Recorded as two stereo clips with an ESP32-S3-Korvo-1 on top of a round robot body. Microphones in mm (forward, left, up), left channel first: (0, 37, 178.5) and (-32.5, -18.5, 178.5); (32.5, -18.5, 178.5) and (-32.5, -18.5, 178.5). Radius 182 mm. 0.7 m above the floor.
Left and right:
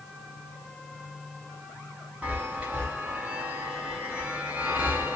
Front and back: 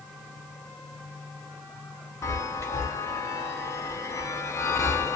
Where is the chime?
45° right, 0.5 m.